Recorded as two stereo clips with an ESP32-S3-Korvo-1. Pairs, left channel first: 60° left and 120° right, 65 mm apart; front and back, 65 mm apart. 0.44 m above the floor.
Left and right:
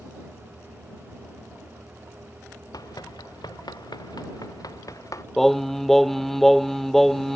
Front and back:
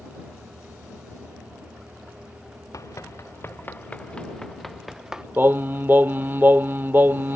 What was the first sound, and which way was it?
Running footsteps, 35° left.